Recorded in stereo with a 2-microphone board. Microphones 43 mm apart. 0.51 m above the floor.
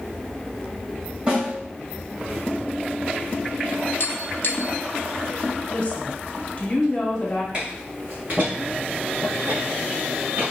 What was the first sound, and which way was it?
A snare drum, 25° right (ahead or behind).